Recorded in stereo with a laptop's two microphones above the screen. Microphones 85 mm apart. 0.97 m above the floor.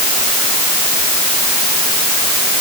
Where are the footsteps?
I don't hear footsteps.